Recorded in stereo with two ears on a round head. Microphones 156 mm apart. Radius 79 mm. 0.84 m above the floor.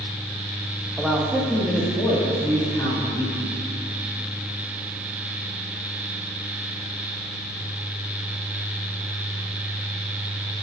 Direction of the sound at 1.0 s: 5° right (ahead or behind).